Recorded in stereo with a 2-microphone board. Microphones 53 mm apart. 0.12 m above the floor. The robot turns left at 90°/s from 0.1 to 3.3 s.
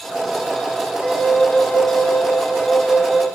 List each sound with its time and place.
1.0 s a flute: 170° right, 1.0 m; by 3.2 s 15° right, 1.0 m